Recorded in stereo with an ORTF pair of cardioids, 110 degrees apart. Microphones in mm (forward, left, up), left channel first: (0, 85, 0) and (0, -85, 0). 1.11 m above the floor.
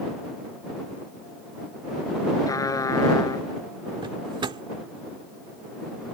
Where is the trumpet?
20° left.